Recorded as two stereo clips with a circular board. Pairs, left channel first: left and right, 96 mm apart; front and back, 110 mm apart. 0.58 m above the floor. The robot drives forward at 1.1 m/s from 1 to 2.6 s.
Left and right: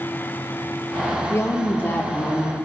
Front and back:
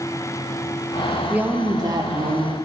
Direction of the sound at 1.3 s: 115° left.